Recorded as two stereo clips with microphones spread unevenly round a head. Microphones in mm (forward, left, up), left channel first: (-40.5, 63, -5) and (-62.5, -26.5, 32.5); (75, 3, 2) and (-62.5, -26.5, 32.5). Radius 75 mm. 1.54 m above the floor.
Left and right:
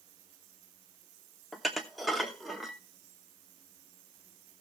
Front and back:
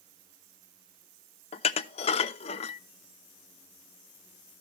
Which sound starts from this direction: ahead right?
Dishes clattering, at 1.5 s.